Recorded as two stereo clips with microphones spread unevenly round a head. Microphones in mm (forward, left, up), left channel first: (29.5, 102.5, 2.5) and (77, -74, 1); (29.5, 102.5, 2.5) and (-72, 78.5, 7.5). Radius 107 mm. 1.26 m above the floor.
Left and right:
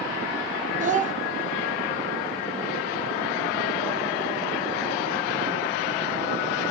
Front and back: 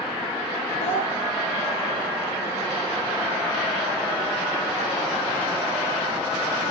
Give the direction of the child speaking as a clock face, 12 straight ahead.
1 o'clock.